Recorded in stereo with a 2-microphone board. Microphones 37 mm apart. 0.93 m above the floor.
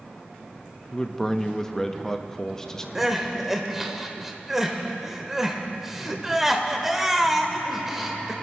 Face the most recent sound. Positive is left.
turn(degrees=-10)  # may be behind; listen again after turning